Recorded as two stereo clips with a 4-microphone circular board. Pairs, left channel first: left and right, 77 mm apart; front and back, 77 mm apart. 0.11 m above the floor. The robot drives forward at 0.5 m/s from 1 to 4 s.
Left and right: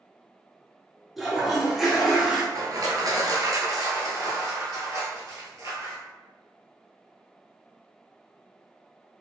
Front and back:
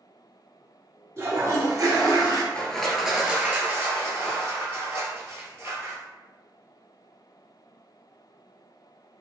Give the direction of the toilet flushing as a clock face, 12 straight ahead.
6 o'clock.